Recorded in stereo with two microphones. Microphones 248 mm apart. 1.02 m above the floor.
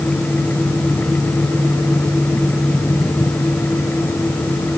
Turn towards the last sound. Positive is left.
No sound to turn to.